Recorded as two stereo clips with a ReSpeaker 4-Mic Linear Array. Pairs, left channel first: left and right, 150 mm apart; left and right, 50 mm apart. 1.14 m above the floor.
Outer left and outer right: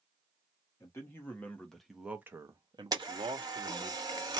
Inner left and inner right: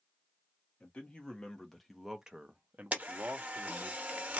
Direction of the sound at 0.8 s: 20° left (ahead or behind).